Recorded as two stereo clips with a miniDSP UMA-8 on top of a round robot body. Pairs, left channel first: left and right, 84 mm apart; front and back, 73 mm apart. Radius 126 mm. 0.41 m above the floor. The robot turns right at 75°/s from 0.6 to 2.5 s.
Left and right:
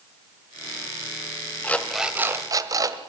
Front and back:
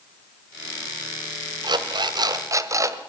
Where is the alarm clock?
160° left, 1.6 m; by 3.0 s 135° right, 1.6 m.